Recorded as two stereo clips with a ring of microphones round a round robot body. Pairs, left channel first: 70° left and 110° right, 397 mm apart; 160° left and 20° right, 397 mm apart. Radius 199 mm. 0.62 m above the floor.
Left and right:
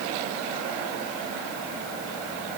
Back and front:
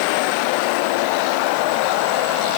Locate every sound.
Only background noise.